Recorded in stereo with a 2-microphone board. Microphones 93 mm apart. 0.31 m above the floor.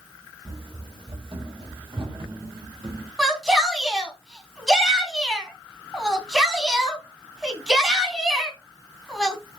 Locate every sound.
0.5 s running footsteps: 55° right (ahead or behind), 4 m
3.2 s a shout: 5° right (ahead or behind), 2.5 m